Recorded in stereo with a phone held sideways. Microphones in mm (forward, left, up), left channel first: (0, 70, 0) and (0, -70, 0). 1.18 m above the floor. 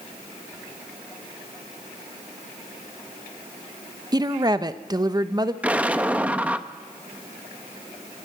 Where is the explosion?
10° right (ahead or behind), 0.7 m.